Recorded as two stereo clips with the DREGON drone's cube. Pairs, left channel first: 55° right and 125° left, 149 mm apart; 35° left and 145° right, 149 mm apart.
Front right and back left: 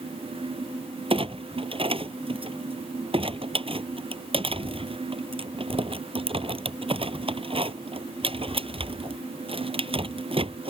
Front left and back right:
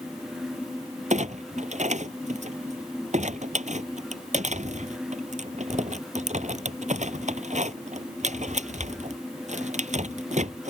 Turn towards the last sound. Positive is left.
turn(degrees=175)